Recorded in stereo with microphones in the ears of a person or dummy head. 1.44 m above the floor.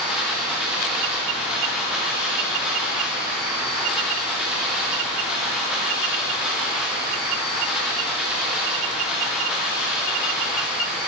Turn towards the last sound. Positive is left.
turn(degrees=-5)  # may be behind; listen again after turning